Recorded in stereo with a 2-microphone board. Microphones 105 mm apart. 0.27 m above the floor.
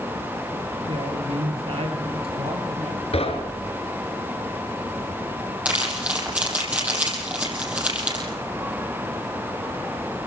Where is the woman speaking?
65° right (ahead or behind), 6 m.